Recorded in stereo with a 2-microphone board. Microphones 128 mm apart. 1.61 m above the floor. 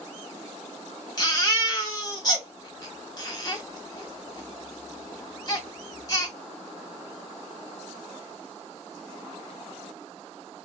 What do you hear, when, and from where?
1.2 s a baby crying: 30° left (ahead or behind), 1.3 m